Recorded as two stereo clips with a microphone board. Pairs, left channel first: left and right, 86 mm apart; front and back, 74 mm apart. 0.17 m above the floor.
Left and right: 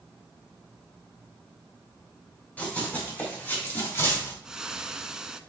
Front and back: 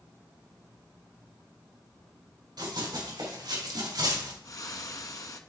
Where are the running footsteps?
165° left, 4.5 m; by 4.3 s 150° left, 3 m.